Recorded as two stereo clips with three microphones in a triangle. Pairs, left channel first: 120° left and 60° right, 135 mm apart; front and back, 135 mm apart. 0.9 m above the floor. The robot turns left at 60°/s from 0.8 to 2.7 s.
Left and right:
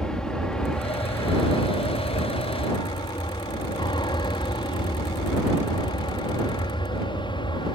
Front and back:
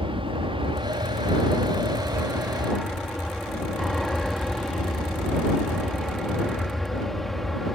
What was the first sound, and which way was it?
An aircraft, 160° right.